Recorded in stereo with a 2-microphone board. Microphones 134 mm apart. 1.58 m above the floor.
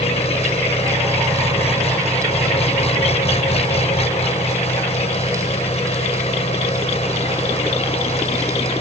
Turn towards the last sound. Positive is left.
turn(degrees=45)  # may be behind; listen again after turning